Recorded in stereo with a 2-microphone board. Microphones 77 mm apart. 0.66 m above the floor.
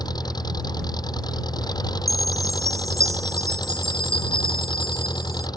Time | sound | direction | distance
0.0 | an engine running | 65° left (ahead or behind) | ?
2.1 | a chime | 45° right (ahead or behind) | ?